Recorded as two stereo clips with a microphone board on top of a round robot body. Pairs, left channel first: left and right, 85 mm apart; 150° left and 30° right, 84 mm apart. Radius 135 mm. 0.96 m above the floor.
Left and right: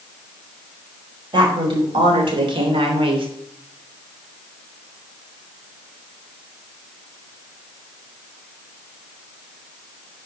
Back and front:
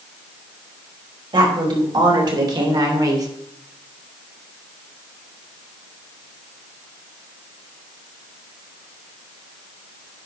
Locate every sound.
1.3 s a woman speaking: 60° right, 4 m; by 3.3 s 80° right, 2.5 m